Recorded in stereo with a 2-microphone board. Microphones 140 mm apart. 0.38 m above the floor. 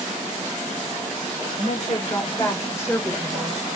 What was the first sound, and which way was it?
A woman speaking, 50° left (ahead or behind).